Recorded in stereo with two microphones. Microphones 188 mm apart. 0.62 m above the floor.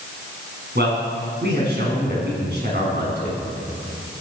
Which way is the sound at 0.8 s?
60° right (ahead or behind).